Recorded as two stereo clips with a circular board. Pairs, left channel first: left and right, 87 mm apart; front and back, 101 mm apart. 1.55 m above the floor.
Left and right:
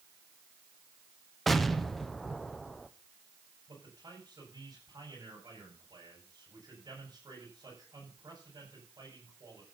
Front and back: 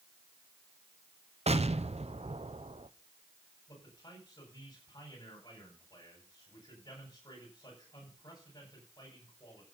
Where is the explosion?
Straight behind, 0.9 m.